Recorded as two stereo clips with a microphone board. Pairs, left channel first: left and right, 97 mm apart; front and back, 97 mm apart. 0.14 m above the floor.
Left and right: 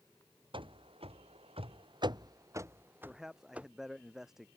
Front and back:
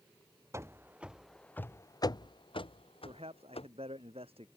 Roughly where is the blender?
I don't hear a blender.